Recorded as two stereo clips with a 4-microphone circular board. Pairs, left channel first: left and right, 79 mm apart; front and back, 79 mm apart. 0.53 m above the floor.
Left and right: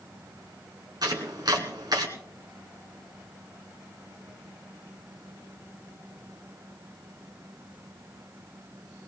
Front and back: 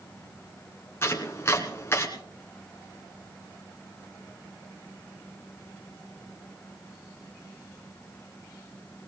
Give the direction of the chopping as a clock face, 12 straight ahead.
2 o'clock.